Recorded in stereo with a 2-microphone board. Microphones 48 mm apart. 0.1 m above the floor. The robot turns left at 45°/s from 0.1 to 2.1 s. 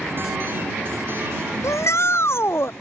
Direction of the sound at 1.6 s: 70° left (ahead or behind).